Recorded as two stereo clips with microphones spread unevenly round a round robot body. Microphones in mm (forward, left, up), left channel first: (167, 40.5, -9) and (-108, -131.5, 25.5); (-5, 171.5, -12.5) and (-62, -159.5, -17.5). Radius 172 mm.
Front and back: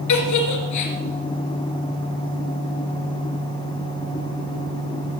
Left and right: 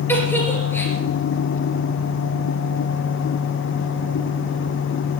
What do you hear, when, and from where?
0.1 s a giggle: 5° right, 2.5 m